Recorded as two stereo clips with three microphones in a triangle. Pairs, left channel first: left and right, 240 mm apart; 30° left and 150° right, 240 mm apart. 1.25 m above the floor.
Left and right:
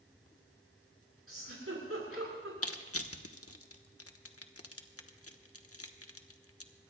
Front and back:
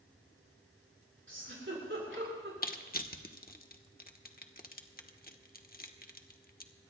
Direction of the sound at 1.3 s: 115° right.